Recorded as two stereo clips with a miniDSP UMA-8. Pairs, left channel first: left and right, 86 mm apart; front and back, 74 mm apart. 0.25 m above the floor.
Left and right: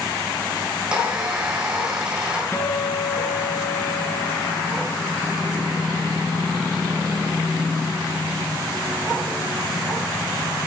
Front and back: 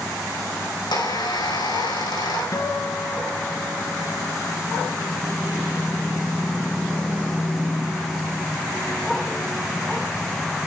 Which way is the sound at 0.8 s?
10° right.